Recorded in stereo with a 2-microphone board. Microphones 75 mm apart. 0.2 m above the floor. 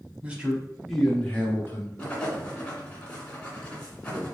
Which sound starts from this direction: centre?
Writing, at 2.0 s.